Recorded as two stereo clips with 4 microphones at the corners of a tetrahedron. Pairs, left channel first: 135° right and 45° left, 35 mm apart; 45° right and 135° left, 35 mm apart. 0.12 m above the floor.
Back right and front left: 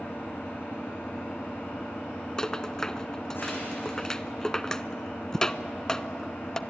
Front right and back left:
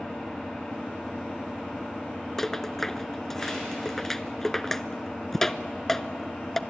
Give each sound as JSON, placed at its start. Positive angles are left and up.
{"t": 0.0, "sound": "an engine running", "azimuth_deg": -120, "distance_m": 7.5}
{"t": 2.4, "sound": "a rattle", "azimuth_deg": -105, "distance_m": 0.5}